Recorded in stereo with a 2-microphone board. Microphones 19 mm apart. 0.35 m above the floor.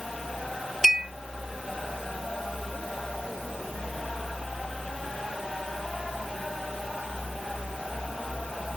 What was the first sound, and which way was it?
A clink, 30° right (ahead or behind).